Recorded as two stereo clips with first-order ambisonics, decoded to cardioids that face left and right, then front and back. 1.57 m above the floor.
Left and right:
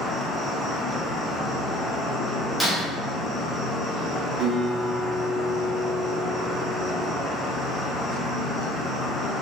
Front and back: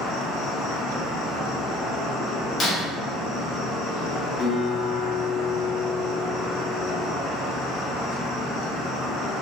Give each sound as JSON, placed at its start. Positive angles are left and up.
{"t": 0.0, "sound": "an insect", "azimuth_deg": -5, "distance_m": 0.8}
{"t": 2.6, "sound": "breaking glass", "azimuth_deg": -5, "distance_m": 0.7}
{"t": 4.4, "sound": "a guitar", "azimuth_deg": -45, "distance_m": 0.7}